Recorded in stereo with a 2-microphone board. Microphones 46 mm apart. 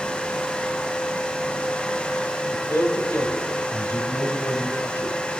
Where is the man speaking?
55° left (ahead or behind), 2.5 m.